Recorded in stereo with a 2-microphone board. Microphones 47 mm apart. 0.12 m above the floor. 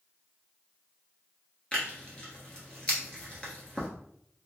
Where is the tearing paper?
25° left (ahead or behind), 1.2 m.